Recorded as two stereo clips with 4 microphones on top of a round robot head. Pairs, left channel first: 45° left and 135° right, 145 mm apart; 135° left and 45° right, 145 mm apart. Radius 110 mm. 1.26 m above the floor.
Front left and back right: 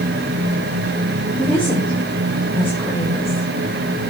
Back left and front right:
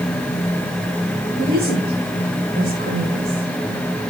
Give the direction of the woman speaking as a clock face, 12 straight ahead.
1 o'clock.